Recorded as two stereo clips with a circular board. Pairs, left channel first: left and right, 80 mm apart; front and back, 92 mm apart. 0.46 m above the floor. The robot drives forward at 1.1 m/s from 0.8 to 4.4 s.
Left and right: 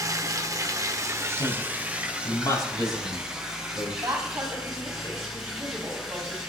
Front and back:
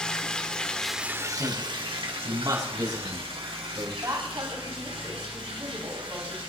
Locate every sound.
0.0 s running water: 75° right, 0.7 m; by 6.5 s 175° right, 4 m
1.4 s a man speaking: 115° left, 4 m; by 3.9 s 140° left, 6 m
4.0 s a woman speaking: 135° right, 3 m; by 6.4 s 140° right, 3 m